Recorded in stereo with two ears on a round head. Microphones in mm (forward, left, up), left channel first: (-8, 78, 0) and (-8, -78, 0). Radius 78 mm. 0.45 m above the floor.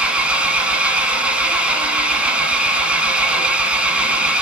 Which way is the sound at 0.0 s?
10° right (ahead or behind).